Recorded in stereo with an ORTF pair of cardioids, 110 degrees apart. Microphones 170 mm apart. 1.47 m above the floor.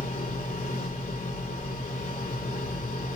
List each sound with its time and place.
0.0 s a machine running: 40° left, 4 m